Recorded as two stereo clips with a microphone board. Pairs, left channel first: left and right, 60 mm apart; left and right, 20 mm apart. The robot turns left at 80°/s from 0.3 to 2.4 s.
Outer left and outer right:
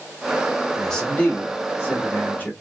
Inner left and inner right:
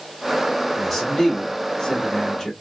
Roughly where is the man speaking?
Behind.